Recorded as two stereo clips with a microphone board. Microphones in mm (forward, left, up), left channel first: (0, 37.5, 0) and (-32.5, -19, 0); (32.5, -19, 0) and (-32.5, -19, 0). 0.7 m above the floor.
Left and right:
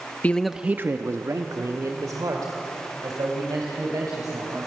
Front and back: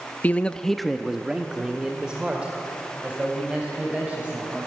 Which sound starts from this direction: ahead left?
A man speaking, at 0.2 s.